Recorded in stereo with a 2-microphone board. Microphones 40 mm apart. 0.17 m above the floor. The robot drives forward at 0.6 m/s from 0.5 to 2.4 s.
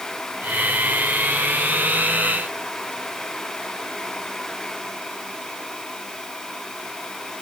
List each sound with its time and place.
Only background noise.